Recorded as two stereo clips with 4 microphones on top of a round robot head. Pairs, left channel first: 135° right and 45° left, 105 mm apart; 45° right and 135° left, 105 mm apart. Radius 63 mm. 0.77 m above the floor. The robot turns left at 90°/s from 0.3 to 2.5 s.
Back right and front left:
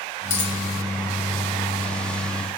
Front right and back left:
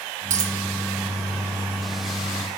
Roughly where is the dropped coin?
Behind.